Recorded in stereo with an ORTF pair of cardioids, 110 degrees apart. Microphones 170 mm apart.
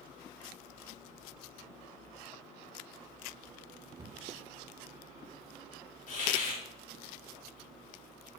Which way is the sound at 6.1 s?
55° left.